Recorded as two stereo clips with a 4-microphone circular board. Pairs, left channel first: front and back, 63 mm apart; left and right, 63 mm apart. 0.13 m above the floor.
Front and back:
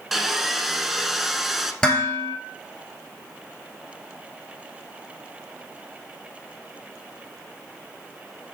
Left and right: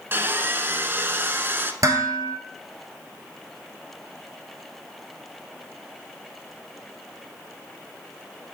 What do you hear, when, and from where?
0.1 s sawing: 95° right, 0.7 m
1.8 s dishes clattering: 75° right, 1.7 m